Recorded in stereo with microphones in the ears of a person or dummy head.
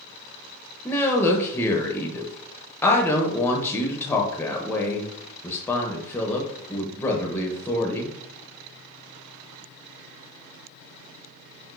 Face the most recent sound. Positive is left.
turn(degrees=10)  # may be behind; listen again after turning